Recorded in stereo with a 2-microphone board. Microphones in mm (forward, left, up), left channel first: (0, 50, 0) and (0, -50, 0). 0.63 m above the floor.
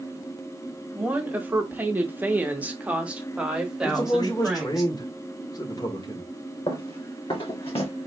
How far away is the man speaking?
About 1.4 m.